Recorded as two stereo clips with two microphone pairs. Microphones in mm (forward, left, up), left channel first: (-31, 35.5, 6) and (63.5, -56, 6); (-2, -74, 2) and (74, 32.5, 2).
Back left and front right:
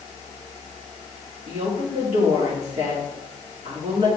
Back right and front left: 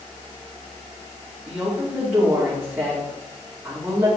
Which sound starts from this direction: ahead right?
A woman speaking, at 1.5 s.